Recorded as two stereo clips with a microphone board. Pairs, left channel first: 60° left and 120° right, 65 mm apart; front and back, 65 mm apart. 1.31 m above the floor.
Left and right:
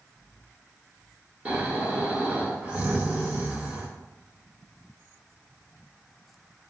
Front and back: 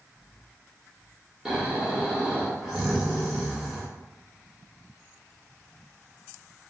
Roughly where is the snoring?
Right.